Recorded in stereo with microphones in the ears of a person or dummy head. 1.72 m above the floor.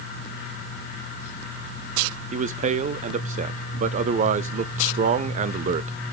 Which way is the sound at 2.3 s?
40° right (ahead or behind).